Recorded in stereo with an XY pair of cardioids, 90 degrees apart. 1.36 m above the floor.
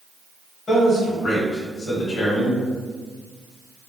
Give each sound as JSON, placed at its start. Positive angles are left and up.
{"t": 0.7, "sound": "a man speaking", "azimuth_deg": 65, "distance_m": 1.5}